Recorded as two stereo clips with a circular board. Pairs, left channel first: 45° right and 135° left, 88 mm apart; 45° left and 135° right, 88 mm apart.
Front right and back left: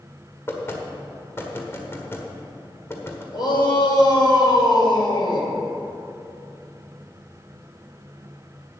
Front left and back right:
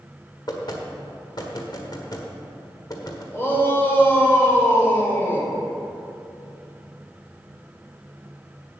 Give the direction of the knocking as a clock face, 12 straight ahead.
12 o'clock.